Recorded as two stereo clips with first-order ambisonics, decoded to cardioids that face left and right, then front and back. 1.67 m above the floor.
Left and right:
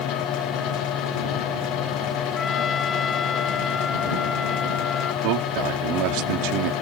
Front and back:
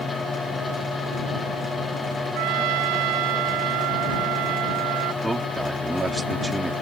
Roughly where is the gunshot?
No gunshot in this recording.